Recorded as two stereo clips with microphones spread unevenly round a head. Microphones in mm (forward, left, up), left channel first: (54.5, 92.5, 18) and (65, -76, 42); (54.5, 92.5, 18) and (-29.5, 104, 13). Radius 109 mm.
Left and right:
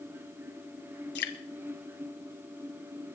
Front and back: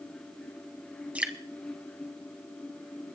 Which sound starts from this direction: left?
Dripping, at 1.1 s.